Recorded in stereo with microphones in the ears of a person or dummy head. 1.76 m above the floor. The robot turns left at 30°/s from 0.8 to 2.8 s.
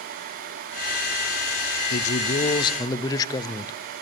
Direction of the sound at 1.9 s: 50° left (ahead or behind).